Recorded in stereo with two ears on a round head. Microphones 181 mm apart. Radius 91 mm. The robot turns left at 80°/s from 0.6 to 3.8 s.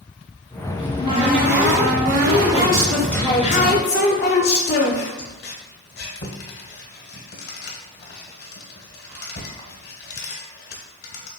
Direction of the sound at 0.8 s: Centre (ahead or behind).